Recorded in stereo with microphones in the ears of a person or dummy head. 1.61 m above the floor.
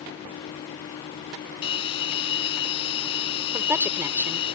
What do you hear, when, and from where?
1.6 s a bell: 30° left (ahead or behind)
3.5 s a woman speaking: 10° right (ahead or behind)